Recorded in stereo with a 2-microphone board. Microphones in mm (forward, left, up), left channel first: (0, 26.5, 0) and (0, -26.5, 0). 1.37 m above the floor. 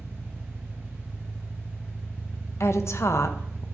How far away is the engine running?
About 0.8 m.